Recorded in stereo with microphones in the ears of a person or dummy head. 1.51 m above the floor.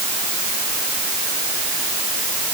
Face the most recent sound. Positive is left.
No sound to turn to.